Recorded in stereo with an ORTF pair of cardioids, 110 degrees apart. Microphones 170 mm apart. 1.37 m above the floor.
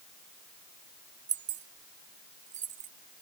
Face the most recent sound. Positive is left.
turn(degrees=-50)